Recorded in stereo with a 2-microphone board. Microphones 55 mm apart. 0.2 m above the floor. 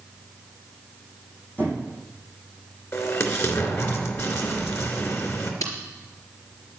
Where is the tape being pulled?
70° left (ahead or behind), 4 m.